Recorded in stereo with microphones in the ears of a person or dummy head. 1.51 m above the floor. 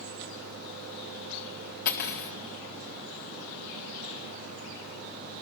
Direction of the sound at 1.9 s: 50° left (ahead or behind).